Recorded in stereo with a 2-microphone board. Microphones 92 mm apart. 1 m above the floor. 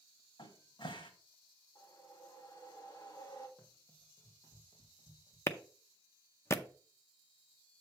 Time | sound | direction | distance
0.4 | a cupboard door | 60° left (ahead or behind) | 1.4 m
1.8 | a whoosh | 45° left (ahead or behind) | 2 m
3.6 | running footsteps | 10° left (ahead or behind) | 2.5 m
5.5 | a clap | 30° left (ahead or behind) | 0.6 m